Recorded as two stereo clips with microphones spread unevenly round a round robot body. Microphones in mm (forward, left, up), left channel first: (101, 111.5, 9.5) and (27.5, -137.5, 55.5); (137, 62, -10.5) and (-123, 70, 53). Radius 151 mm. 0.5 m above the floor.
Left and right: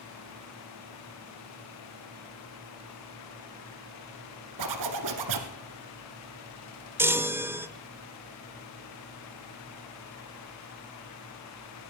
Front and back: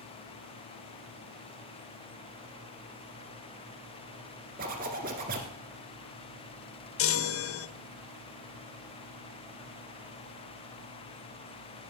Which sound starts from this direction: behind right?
A zipper, at 4.6 s.